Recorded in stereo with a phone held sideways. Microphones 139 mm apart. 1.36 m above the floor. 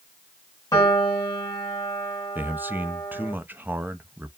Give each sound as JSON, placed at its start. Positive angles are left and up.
{"t": 0.7, "sound": "a piano", "side_deg": 25, "distance_m": 1.8}
{"t": 2.4, "sound": "a man speaking", "side_deg": -15, "distance_m": 0.7}